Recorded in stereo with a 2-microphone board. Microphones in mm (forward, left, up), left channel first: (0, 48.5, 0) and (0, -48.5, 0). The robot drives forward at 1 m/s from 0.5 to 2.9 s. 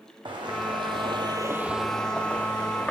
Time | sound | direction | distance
0.2 | footsteps | 55° right (ahead or behind) | 1.4 m